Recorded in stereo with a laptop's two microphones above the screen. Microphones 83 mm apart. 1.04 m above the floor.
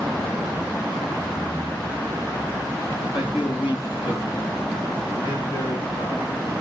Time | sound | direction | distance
3.1 | a man speaking | 75° left (ahead or behind) | 2.0 m